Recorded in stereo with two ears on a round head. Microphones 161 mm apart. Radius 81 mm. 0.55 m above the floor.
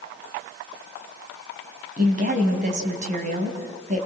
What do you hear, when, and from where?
2.0 s a woman speaking: 45° right (ahead or behind), 3.5 m